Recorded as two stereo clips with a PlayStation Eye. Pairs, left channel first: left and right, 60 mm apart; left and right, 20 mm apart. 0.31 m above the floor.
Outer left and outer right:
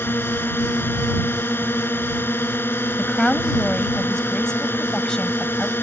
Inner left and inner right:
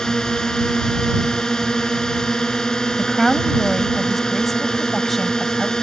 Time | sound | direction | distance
0.0 | a drone | 35° left (ahead or behind) | ?
3.0 | a woman speaking | 10° left (ahead or behind) | ?